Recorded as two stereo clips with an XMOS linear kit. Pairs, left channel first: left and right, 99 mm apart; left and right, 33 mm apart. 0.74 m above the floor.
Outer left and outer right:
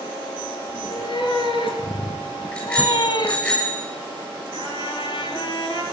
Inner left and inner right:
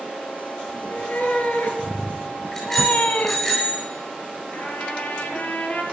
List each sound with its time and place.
0.7 s a cat meowing: 60° left (ahead or behind), 3.5 m; by 3.4 s 40° left (ahead or behind), 0.6 m
2.5 s a bicycle bell: 15° left (ahead or behind), 9 m
4.5 s a trumpet: 55° left (ahead or behind), 2.5 m